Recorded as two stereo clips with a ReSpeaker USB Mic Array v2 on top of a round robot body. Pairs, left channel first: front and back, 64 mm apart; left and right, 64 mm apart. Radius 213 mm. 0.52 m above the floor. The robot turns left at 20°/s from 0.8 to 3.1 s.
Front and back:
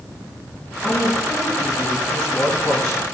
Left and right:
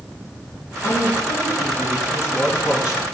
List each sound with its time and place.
0.8 s a woman speaking: 85° left, 5.5 m; by 3.0 s 45° left, 5.5 m